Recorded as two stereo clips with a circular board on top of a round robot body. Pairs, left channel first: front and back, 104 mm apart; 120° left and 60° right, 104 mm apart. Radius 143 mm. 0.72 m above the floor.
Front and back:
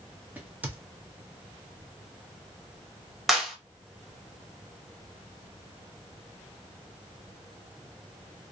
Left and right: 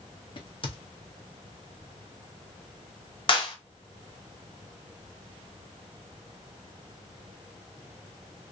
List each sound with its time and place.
0.4 s a crack: 110° left, 0.9 m
3.3 s a clap: 90° left, 1.2 m